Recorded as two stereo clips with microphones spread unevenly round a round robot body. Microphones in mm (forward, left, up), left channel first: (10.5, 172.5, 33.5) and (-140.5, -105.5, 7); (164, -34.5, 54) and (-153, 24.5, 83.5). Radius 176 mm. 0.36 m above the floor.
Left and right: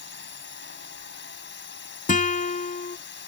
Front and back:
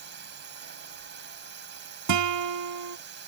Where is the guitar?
130° left.